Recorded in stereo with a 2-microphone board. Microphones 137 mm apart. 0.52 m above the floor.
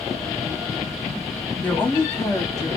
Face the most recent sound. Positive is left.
turn(degrees=25)  # may be behind; listen again after turning